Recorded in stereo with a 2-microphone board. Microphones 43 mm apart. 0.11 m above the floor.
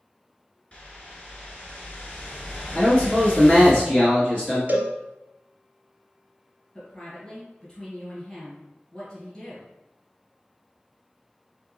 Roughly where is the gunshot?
No gunshot in this recording.